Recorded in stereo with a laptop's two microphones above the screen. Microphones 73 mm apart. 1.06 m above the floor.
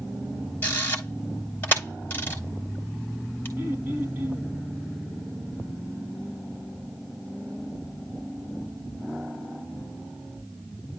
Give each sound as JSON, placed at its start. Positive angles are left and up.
{"t": 0.6, "sound": "a camera shutter", "side_deg": 25, "distance_m": 3.0}
{"t": 3.6, "sound": "throat clearing", "side_deg": -30, "distance_m": 5.0}